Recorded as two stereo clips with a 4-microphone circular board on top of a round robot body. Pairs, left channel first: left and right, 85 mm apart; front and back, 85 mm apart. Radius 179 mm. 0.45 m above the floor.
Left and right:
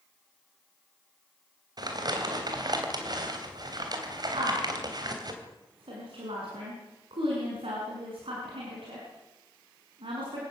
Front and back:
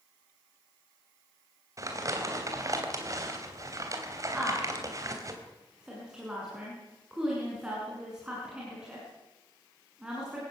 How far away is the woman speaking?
About 6.5 m.